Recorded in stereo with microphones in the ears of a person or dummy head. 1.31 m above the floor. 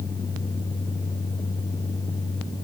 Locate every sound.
Only background noise.